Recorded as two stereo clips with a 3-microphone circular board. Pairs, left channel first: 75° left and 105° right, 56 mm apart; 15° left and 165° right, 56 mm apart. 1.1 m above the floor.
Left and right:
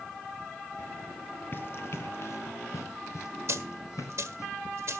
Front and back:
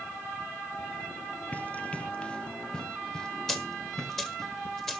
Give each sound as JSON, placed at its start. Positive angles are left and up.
{"t": 1.5, "sound": "running footsteps", "azimuth_deg": 60, "distance_m": 1.3}
{"t": 3.5, "sound": "a dropped coin", "azimuth_deg": -65, "distance_m": 1.7}